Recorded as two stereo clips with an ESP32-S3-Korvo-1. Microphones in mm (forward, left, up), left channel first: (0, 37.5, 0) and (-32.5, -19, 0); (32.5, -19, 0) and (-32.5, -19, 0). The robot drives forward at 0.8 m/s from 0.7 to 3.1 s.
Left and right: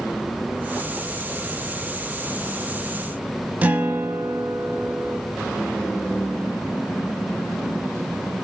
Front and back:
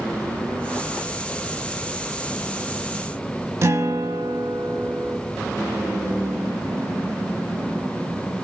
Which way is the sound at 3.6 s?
175° right.